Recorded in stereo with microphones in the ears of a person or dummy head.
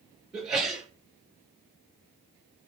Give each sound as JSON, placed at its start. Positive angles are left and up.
{"t": 0.3, "sound": "a sneeze", "side_deg": -10, "distance_m": 5.5}